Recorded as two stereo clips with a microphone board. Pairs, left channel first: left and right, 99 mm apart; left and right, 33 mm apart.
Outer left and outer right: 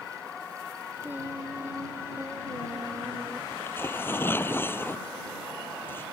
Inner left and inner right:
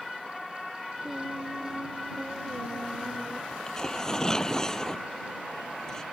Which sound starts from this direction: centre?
Singing, at 1.0 s.